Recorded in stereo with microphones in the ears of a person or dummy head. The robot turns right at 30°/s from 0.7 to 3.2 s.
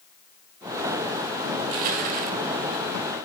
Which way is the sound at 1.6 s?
45° right (ahead or behind).